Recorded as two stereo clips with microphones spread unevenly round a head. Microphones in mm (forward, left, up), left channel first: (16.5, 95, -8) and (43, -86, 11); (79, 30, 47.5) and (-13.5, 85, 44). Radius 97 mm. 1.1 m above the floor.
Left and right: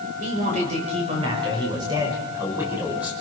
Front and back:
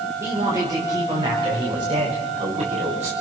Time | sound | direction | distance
0.2 | a man speaking | 140° right | 6.5 m